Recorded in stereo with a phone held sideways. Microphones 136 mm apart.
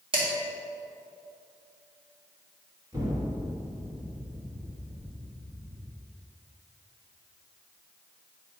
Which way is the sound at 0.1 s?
40° right (ahead or behind).